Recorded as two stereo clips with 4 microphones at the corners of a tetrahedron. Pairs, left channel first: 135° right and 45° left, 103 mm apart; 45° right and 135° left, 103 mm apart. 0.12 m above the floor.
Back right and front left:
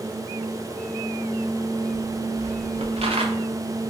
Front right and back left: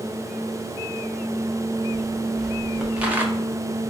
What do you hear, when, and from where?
1.9 s footsteps: 40° left, 1.6 m; by 3.3 s 65° left, 0.8 m